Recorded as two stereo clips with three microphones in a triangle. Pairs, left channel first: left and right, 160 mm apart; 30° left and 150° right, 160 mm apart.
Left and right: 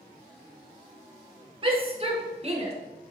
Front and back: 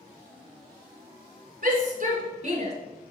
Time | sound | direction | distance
1.6 | a shout | 140° right | 2 m